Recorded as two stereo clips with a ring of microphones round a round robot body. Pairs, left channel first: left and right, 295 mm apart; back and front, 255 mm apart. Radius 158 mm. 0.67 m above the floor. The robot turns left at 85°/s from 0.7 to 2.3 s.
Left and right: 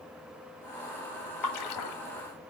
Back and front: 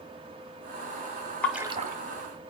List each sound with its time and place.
1.4 s a splash: 95° left, 1.4 m; by 2.0 s 50° left, 1.4 m